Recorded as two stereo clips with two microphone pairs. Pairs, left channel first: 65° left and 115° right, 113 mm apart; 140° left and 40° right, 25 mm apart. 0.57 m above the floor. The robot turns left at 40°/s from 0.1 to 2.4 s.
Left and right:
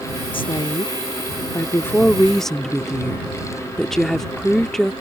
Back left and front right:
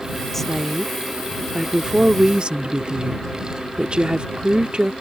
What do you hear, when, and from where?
0.3 s a woman speaking: 65° left; by 4.9 s 20° right